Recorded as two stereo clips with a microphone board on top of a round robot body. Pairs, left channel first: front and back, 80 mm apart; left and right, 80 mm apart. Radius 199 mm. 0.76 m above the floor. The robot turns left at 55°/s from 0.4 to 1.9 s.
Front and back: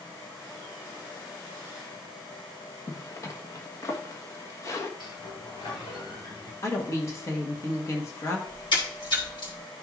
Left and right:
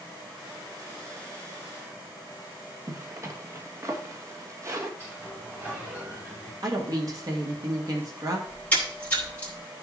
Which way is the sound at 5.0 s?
25° right.